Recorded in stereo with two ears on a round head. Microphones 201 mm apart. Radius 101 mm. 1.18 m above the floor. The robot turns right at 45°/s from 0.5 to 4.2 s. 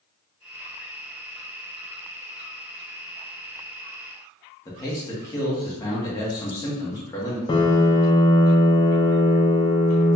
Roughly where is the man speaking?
Centre.